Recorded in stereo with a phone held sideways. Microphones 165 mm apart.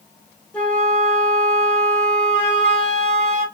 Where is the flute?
5° left (ahead or behind), 1.4 m.